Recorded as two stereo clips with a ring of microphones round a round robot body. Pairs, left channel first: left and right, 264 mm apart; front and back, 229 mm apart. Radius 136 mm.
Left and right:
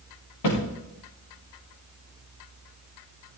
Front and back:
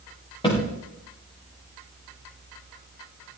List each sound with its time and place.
0.4 s a thud: 70° left, 6 m